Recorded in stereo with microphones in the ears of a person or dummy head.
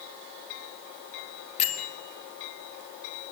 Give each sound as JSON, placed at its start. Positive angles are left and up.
{"t": 1.6, "sound": "a bell", "side_deg": 40, "distance_m": 1.8}